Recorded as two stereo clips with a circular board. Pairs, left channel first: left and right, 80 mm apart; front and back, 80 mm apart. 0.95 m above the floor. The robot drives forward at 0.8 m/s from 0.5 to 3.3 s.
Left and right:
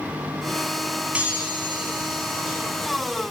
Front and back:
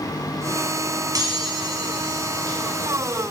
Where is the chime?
160° right, 1.4 m; by 3.2 s 170° right, 3 m.